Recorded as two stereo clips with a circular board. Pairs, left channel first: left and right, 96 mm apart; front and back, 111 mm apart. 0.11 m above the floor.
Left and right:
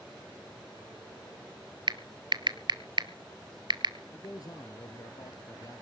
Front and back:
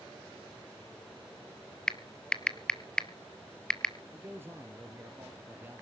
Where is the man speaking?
115° left, 2.5 m.